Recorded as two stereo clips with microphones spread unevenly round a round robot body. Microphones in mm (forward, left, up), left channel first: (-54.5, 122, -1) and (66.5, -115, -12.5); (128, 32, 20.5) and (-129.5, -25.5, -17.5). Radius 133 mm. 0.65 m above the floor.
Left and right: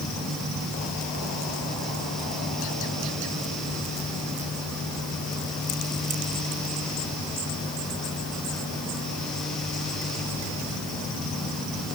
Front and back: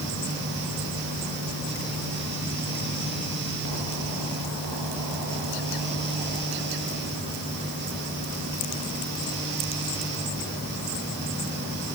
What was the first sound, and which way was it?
Only background noise.